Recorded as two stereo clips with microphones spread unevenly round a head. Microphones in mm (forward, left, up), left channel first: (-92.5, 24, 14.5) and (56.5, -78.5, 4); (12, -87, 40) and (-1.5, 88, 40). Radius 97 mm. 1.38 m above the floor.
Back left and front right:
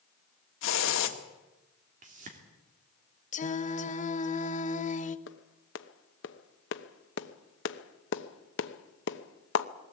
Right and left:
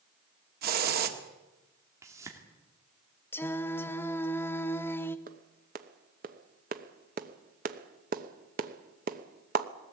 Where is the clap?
135° left, 0.9 m.